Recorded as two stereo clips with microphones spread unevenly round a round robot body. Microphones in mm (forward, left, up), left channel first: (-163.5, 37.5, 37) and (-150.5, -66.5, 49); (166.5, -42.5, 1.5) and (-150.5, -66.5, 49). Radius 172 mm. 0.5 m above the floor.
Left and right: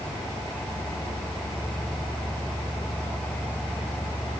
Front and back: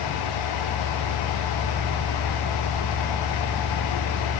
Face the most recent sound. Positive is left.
No sound to turn to.